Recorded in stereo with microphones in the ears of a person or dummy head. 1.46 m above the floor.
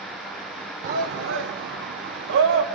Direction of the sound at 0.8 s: 45° right (ahead or behind).